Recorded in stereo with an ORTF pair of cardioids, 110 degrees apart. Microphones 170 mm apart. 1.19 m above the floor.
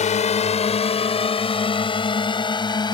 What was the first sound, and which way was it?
A drone, 45° left.